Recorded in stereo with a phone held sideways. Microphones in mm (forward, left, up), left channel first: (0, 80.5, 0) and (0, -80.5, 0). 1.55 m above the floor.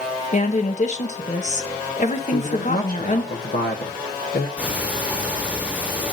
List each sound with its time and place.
0.3 s a woman speaking: 45° left (ahead or behind), 1.2 m
2.3 s a man speaking: 75° left (ahead or behind), 1.1 m
4.6 s ticking: 10° right (ahead or behind), 1.1 m